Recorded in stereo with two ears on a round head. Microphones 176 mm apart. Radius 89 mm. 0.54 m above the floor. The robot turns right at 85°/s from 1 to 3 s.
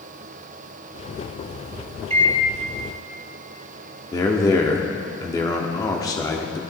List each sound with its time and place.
2.1 s a microwave: 35° right (ahead or behind), 0.8 m; by 2.4 s 15° right (ahead or behind), 0.8 m
4.1 s a man speaking: 20° left (ahead or behind), 1.0 m